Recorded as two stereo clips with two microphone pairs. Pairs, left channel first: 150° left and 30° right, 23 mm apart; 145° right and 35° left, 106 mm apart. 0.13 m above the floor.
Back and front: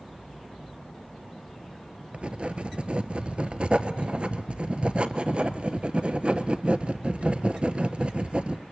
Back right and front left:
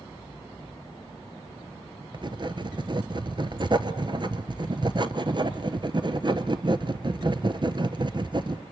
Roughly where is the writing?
Ahead.